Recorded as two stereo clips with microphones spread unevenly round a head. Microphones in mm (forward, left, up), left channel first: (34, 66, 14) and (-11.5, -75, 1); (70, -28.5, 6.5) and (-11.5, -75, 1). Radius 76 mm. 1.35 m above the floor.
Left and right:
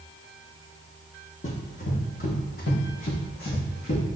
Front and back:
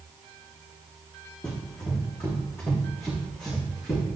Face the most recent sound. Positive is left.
turn(degrees=95)